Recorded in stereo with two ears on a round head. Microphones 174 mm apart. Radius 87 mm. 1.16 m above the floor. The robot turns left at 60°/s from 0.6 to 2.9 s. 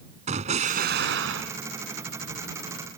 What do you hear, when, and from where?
0.3 s an explosion: 35° right; by 1.6 s 95° right